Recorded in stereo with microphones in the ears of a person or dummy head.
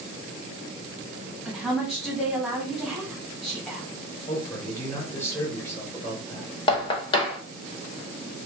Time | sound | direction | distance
1.4 | a woman speaking | 5° right (ahead or behind) | 1.2 m
4.3 | a man speaking | 15° left (ahead or behind) | 1.0 m
6.7 | knocking | 30° left (ahead or behind) | 0.8 m